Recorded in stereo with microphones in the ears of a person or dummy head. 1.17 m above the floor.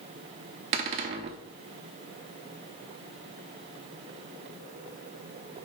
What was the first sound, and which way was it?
A cupboard door, 35° right (ahead or behind).